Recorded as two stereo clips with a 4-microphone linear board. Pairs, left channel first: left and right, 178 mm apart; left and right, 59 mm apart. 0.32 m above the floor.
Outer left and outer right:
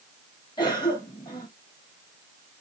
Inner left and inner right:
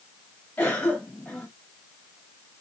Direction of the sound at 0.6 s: 25° left (ahead or behind).